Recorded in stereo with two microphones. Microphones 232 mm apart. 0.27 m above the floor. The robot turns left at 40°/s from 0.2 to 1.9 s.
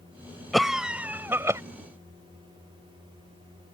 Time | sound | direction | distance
0.5 | a cough | centre (ahead or behind) | ?